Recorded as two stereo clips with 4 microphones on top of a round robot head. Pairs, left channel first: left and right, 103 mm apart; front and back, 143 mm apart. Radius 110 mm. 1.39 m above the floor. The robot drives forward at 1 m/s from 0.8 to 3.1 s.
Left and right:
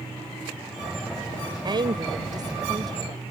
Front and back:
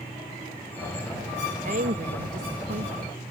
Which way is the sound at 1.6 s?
135° right.